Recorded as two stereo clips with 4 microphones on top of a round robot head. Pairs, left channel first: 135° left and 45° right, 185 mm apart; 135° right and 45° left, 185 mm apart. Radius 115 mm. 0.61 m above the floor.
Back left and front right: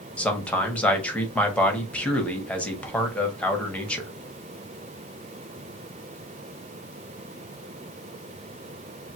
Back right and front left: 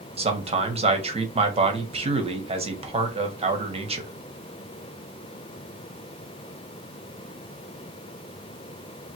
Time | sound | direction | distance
0.2 | a man speaking | 55° left | 1.3 m